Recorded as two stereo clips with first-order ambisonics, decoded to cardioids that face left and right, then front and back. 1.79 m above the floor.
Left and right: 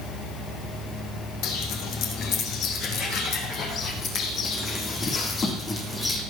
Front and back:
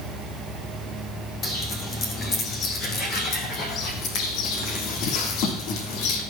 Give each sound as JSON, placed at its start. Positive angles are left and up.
{"t": 1.4, "sound": "footsteps", "azimuth_deg": 60, "distance_m": 4.0}